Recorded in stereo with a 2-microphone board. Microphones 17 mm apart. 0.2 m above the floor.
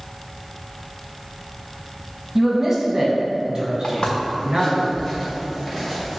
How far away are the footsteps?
About 1.6 m.